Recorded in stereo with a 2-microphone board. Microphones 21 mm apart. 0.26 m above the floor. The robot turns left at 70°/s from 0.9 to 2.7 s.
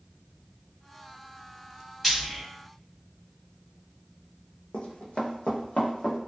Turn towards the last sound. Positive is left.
turn(degrees=60)  # may be behind; listen again after turning